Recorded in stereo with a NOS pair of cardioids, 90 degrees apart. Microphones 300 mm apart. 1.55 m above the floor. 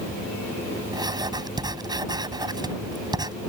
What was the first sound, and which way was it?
Writing, 15° right.